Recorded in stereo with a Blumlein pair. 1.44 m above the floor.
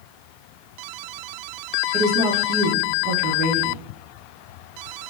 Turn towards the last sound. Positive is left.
turn(degrees=-35)